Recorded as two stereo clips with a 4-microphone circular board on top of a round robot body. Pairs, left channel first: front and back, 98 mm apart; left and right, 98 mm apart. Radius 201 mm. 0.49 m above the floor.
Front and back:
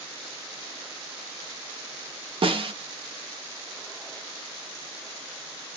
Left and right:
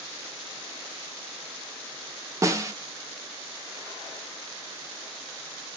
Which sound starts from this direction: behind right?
A snare drum, at 2.4 s.